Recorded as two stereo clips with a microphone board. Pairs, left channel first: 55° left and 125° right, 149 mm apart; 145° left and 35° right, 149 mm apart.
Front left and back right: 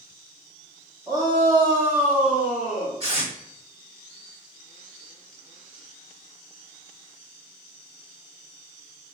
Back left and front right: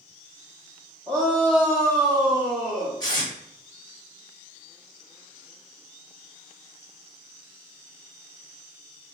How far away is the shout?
About 0.9 m.